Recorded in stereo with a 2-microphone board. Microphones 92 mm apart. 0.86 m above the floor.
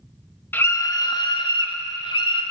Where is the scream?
20° left (ahead or behind), 0.8 m; by 2.4 s 70° left (ahead or behind), 2.5 m.